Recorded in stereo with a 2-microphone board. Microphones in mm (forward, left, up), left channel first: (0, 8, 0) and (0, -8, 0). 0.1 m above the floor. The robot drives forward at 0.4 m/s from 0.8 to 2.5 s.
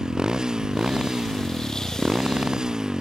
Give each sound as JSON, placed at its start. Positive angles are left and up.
{"t": 0.0, "sound": "a motorcycle", "side_deg": -50}